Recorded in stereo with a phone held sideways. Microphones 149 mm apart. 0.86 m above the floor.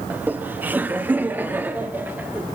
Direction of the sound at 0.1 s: 10° right (ahead or behind).